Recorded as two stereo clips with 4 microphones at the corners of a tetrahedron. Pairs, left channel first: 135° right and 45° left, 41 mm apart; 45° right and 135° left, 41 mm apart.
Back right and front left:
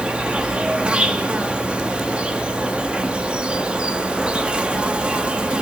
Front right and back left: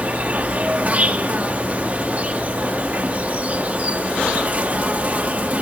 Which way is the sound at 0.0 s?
100° left.